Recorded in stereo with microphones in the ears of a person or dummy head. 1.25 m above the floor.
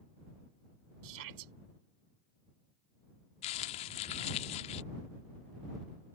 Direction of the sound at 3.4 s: 30° left (ahead or behind).